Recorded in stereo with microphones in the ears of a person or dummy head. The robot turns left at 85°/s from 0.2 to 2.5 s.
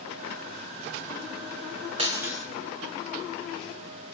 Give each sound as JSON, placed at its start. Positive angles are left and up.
{"t": 2.0, "sound": "breaking glass", "azimuth_deg": -145, "distance_m": 4.0}